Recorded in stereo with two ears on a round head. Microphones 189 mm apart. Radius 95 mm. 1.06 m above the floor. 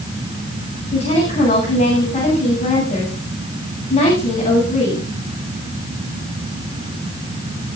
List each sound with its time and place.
0.9 s a woman speaking: 30° left (ahead or behind), 8 m